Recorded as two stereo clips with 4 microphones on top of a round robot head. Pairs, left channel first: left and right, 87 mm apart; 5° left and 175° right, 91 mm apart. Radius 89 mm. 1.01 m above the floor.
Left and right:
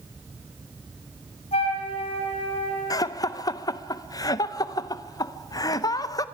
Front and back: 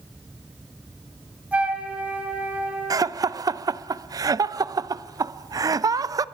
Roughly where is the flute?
Left.